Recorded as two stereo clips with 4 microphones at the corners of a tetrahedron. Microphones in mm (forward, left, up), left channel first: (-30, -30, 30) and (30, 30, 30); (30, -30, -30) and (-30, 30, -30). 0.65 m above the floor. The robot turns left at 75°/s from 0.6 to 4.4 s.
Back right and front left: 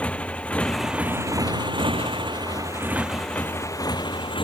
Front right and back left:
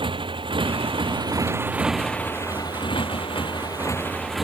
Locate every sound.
0.0 s a motorcycle: 150° left; by 4.4 s 135° right